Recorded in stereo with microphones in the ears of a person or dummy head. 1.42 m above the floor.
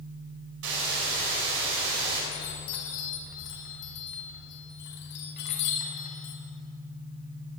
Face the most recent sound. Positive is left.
turn(degrees=75)  # may be behind; listen again after turning